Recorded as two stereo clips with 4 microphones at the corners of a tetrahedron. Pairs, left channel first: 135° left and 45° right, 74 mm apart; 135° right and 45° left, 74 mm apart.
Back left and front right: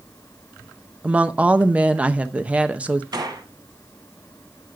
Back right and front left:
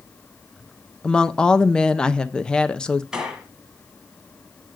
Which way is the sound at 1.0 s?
80° right.